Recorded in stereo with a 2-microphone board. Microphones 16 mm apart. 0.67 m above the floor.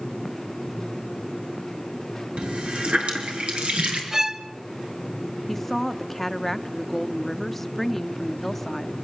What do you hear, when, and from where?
2.4 s a running tap: 85° right, 6 m
4.1 s a violin: 30° right (ahead or behind), 1.1 m
5.5 s a woman speaking: 10° left (ahead or behind), 1.0 m